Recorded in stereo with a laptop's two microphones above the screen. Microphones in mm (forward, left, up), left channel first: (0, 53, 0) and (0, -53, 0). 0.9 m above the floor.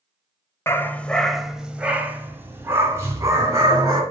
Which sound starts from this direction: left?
A dog barking, at 0.7 s.